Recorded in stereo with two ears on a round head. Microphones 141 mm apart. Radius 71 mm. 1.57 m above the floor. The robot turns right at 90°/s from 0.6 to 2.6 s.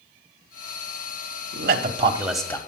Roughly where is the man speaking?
Right.